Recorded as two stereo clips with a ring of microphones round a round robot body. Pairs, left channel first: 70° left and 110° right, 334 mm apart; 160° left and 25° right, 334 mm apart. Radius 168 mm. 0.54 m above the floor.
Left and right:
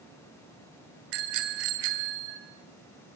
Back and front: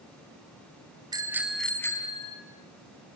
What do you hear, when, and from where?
1.1 s a bicycle bell: 100° right, 3 m; by 2.4 s 130° right, 3.5 m